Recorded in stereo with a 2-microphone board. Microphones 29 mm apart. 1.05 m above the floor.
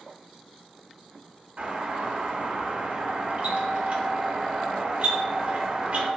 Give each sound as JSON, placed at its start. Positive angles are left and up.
{"t": 1.6, "sound": "a doorbell", "side_deg": -45, "distance_m": 1.3}